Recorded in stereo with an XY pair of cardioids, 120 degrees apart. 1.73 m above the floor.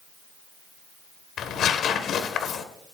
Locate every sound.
1.4 s tearing paper: 60° left, 1.5 m